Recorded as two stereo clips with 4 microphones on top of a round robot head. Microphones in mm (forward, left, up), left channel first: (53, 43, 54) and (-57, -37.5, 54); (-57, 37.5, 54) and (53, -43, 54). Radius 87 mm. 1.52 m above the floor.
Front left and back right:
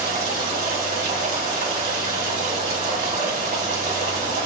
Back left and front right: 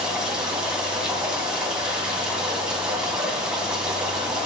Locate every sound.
0.0 s running water: 120° right, 3 m